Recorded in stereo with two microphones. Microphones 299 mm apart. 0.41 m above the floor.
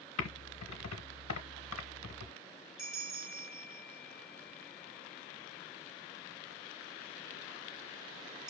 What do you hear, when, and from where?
0.2 s typing on a keyboard: 60° left (ahead or behind), 0.8 m
2.8 s a bell: 65° right (ahead or behind), 0.8 m